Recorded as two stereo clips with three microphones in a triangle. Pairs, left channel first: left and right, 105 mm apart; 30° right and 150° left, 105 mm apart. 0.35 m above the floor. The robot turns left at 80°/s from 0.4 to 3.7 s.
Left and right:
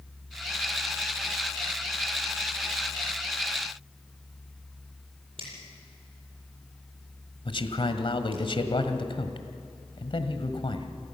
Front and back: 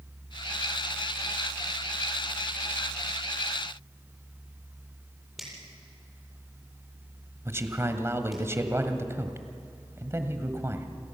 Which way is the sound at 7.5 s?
90° left.